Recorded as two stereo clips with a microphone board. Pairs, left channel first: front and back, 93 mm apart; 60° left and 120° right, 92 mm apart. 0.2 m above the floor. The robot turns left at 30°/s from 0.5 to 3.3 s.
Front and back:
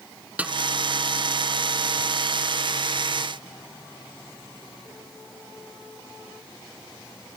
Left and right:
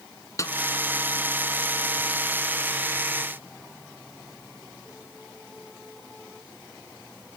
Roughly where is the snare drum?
Left.